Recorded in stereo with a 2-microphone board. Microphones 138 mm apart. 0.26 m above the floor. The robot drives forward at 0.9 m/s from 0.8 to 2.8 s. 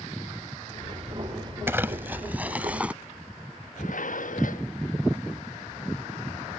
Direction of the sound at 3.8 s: 70° left (ahead or behind).